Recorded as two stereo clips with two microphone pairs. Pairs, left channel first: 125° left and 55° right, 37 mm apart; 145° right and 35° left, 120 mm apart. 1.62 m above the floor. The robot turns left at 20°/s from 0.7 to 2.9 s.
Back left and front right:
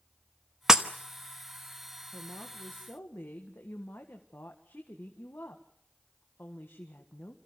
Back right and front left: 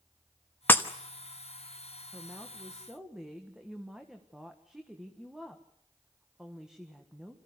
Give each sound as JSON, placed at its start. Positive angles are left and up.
{"t": 0.7, "sound": "breaking glass", "azimuth_deg": -100, "distance_m": 1.0}
{"t": 2.1, "sound": "a woman speaking", "azimuth_deg": 135, "distance_m": 1.7}